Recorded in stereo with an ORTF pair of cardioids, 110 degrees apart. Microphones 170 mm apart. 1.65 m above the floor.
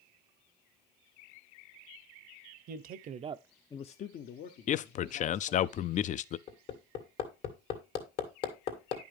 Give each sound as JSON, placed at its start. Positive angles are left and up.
{"t": 2.7, "sound": "a man speaking", "azimuth_deg": -65, "distance_m": 1.0}
{"t": 4.7, "sound": "a man speaking", "azimuth_deg": 45, "distance_m": 0.5}
{"t": 6.5, "sound": "hammering", "azimuth_deg": 70, "distance_m": 2.0}